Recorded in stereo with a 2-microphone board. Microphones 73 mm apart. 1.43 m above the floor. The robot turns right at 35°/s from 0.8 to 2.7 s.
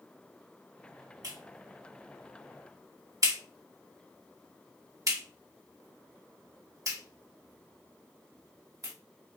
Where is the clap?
65° right (ahead or behind), 1.5 m; by 8.9 s 50° right (ahead or behind), 1.5 m.